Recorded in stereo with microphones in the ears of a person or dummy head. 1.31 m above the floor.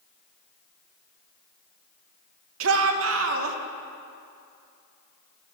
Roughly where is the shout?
Right.